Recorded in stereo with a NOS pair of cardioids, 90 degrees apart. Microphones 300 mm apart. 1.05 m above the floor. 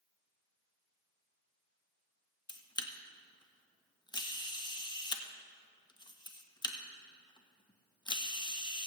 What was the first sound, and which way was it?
A camera shutter, 15° left.